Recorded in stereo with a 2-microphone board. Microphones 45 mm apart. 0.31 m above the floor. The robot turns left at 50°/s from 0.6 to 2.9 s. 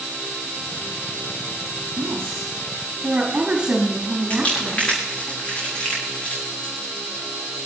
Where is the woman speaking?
110° right, 5 m; by 5.3 s 155° right, 5 m.